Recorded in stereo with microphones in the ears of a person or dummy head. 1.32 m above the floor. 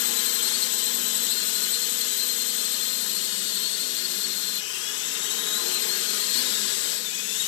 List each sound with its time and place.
0.0 s a drone: 60° left (ahead or behind)